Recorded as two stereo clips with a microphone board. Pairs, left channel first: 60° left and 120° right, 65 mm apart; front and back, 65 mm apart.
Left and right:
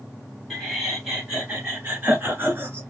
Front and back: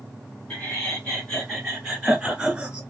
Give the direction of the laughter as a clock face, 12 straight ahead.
1 o'clock.